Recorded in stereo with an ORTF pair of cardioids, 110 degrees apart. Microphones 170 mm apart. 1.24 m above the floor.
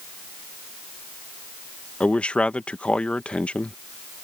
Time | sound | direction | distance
2.0 | a man speaking | 5° left | ?